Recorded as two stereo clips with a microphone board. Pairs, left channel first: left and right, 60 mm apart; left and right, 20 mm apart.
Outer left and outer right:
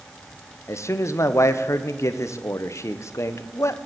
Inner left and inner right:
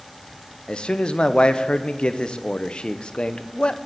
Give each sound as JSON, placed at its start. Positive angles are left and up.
{"t": 0.7, "sound": "a man speaking", "side_deg": 50, "distance_m": 0.5}